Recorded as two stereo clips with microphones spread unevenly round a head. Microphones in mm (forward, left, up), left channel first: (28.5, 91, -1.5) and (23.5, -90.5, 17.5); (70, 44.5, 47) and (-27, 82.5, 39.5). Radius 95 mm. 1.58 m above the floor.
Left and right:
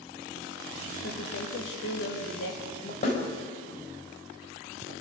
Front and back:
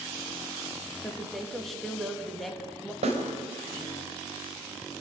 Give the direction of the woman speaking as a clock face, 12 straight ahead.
10 o'clock.